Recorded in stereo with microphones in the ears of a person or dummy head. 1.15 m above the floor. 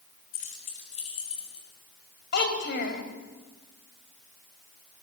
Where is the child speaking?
60° left (ahead or behind), 3.5 m.